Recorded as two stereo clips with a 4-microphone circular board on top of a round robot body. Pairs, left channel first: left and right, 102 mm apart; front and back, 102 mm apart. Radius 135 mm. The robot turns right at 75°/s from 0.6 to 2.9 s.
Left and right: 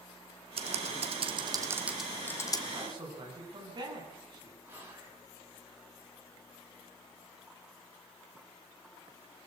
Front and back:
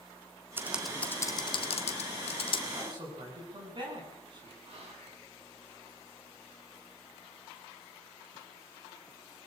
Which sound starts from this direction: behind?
Whispering, at 4.7 s.